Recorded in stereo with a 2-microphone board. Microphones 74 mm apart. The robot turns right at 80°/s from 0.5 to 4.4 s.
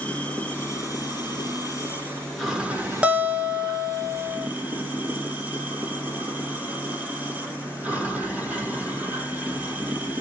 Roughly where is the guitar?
Centre.